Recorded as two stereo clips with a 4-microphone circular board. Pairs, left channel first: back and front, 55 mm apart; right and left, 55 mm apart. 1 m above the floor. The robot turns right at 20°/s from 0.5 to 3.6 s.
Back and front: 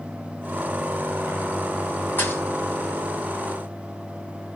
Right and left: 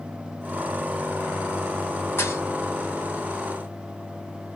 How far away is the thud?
About 2.5 m.